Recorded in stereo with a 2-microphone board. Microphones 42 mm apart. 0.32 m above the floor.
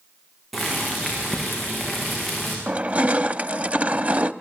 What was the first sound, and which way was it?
Boiling, centre (ahead or behind).